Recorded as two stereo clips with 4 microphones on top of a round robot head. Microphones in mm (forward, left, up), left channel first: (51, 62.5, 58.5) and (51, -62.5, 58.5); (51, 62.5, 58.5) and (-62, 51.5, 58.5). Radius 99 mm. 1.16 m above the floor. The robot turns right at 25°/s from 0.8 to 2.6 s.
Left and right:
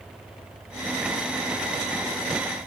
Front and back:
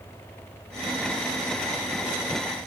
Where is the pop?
No pop in this recording.